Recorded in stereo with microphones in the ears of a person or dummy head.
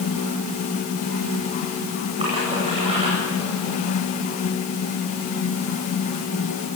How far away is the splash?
About 9 m.